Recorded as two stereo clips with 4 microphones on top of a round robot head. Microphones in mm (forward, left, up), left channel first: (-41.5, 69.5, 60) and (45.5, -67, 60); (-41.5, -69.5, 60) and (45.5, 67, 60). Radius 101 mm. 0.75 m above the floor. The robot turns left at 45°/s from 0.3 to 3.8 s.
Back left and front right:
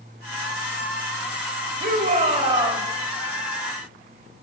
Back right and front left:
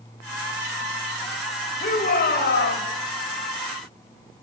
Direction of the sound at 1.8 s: 85° right.